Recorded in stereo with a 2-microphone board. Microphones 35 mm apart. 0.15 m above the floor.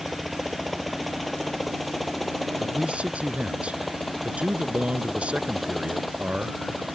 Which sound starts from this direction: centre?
A helicopter, at 0.0 s.